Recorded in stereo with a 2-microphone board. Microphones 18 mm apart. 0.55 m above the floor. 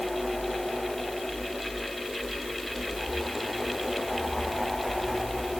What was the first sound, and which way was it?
Only background noise.